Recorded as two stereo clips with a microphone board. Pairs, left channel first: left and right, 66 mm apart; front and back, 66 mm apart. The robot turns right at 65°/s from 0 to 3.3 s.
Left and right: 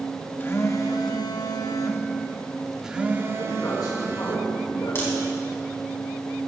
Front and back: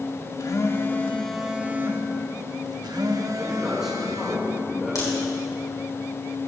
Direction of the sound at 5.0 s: 35° left.